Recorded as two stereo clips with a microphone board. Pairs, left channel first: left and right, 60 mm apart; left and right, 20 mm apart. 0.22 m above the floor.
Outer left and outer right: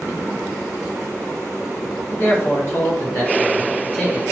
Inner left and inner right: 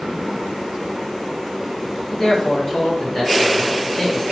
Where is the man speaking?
30° left (ahead or behind), 1.8 m; by 4.2 s 20° left (ahead or behind), 3.5 m.